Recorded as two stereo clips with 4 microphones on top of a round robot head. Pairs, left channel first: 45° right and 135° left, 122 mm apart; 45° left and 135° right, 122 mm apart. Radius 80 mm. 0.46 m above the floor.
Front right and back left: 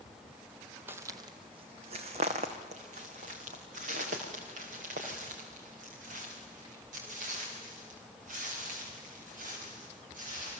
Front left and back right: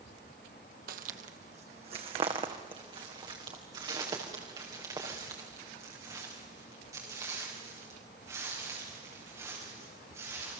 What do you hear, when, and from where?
0.9 s footsteps: 150° right, 1.1 m; by 10.6 s 155° left, 11 m